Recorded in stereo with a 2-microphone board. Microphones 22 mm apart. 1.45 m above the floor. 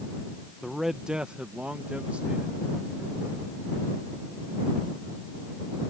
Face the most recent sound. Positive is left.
turn(degrees=-85)